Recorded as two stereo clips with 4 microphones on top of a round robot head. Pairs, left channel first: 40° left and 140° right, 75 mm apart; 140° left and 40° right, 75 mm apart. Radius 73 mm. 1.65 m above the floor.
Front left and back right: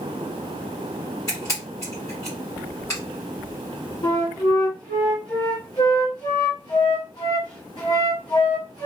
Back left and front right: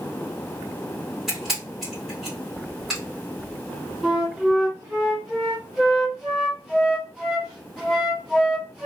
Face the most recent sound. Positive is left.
turn(degrees=55)